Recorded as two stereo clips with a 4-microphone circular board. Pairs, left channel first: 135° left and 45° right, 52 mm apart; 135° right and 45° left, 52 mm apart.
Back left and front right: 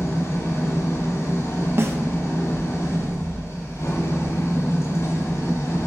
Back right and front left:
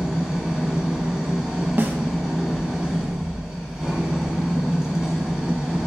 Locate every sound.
0.0 s an engine running: 125° left, 1.1 m
1.8 s a snare drum: 10° right, 0.5 m